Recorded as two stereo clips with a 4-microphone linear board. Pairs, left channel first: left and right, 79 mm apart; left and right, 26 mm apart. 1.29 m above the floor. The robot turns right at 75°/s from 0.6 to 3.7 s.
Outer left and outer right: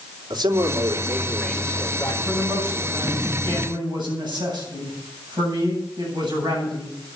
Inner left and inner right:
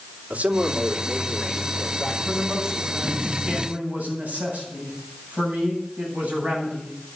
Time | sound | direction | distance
0.3 | a man speaking | 65° right | 3 m
2.2 | a man speaking | 165° left | 8.5 m